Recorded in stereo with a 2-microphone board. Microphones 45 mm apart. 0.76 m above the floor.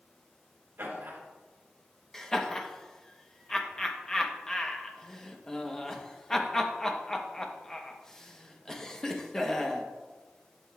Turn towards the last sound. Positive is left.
turn(degrees=15)  # may be behind; listen again after turning